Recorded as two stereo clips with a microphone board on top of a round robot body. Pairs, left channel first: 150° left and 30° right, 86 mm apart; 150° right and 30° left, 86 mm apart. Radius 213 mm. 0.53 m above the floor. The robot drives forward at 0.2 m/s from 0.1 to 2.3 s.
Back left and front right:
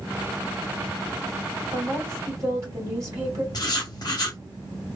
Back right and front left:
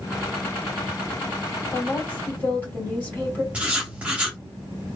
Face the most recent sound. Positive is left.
turn(degrees=105)